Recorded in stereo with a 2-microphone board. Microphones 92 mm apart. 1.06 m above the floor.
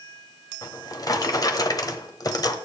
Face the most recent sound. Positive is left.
turn(degrees=45)  # may be behind; listen again after turning